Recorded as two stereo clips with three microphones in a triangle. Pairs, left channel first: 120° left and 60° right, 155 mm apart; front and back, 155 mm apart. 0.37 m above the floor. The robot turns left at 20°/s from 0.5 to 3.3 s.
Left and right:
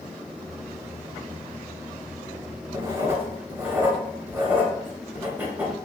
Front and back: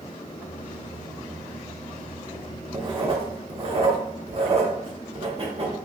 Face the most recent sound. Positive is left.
turn(degrees=-135)